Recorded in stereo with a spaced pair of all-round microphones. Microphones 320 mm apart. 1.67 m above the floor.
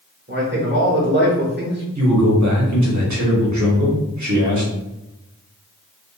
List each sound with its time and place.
0.3 s a man speaking: 35° right (ahead or behind), 0.9 m
1.9 s a man speaking: 60° right (ahead or behind), 0.8 m